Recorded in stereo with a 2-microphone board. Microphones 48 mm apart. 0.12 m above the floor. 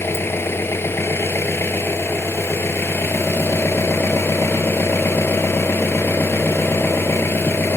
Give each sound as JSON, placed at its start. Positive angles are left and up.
{"t": 0.0, "sound": "an engine running", "side_deg": 60, "distance_m": 0.9}